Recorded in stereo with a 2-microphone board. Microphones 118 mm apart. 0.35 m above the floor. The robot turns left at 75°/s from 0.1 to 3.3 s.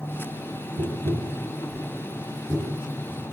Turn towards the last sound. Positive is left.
turn(degrees=80)